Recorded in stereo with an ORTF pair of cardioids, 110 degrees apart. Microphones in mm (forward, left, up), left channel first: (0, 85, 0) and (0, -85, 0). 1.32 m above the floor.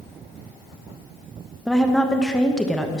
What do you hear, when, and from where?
1.7 s a woman speaking: 5° left, 1.0 m